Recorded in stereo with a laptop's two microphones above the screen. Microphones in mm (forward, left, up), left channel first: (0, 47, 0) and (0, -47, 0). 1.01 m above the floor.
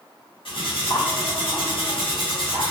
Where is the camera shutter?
I don't hear a camera shutter.